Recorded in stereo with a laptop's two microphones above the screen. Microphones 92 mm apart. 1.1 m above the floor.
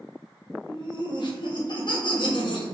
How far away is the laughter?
About 0.8 m.